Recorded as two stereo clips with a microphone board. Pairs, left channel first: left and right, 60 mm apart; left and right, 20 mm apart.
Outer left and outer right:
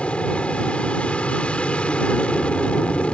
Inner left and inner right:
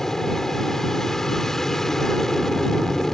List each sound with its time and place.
0.0 s an aircraft: 20° left (ahead or behind)